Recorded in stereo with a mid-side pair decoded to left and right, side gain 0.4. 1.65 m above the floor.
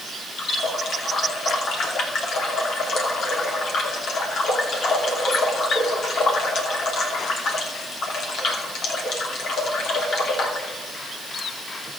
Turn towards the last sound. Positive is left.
turn(degrees=65)